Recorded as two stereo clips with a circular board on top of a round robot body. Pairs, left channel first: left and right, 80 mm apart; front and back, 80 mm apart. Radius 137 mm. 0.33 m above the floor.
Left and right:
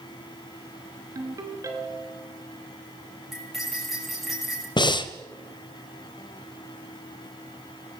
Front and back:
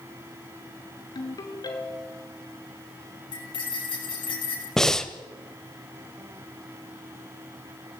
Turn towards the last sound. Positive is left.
turn(degrees=85)